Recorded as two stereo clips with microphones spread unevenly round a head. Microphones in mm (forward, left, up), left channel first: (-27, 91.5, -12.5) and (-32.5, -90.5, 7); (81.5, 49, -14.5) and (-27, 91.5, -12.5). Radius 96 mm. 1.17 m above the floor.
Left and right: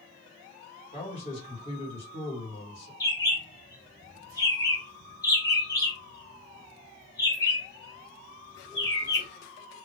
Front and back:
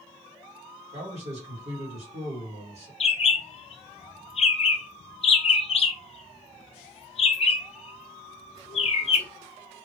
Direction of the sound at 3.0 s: 15° left.